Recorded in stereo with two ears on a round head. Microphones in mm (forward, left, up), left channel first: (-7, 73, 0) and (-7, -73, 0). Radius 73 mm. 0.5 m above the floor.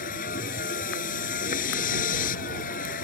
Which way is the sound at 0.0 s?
55° left (ahead or behind).